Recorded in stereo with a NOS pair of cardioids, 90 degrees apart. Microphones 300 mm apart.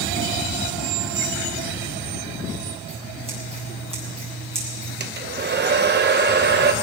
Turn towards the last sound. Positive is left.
turn(degrees=-35)